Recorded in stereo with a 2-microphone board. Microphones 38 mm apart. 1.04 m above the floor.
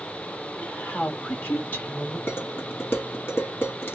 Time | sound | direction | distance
0.6 | a woman speaking | 40° left (ahead or behind) | 1.3 m
2.3 | dishes clattering | 85° left | 1.6 m